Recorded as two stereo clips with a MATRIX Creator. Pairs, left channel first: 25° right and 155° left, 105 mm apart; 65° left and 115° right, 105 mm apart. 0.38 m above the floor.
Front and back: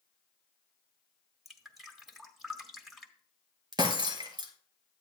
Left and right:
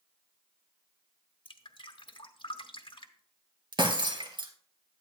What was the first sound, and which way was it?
Dripping, 70° left.